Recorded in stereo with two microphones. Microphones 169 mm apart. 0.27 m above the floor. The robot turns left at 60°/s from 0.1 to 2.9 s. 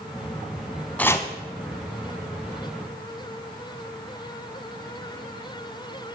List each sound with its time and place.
1.0 s chopping: 10° left (ahead or behind), 0.6 m; by 1.3 s 25° left (ahead or behind), 0.6 m